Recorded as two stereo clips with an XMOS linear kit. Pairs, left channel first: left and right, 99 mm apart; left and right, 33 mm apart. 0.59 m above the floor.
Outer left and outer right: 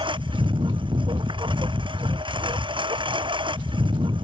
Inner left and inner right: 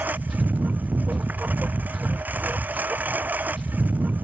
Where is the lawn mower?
55° right (ahead or behind).